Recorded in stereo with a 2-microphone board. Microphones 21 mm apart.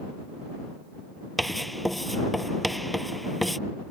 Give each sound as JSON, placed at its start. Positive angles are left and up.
{"t": 1.4, "sound": "writing", "side_deg": 5}